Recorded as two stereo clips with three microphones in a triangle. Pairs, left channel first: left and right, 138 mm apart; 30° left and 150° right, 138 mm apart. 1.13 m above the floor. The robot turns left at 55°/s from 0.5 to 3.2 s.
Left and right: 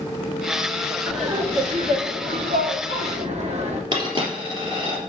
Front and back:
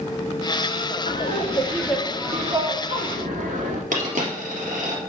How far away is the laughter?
About 2 m.